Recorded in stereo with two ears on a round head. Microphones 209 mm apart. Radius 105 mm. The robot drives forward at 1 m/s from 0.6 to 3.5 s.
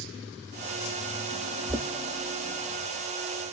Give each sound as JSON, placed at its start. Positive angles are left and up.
{"t": 1.7, "sound": "knocking", "side_deg": -15, "distance_m": 0.8}